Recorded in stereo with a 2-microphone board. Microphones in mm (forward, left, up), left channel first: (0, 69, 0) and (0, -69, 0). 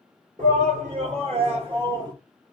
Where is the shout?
65° right (ahead or behind), 2.0 m; by 2.1 s 30° right (ahead or behind), 1.5 m.